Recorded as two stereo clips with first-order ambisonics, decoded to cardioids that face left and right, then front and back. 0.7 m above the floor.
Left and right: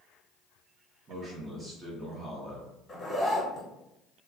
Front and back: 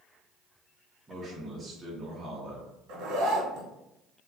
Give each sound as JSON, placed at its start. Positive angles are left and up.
{"t": 1.1, "sound": "a man speaking", "azimuth_deg": -125, "distance_m": 0.7}
{"t": 2.9, "sound": "a zipper", "azimuth_deg": 170, "distance_m": 0.7}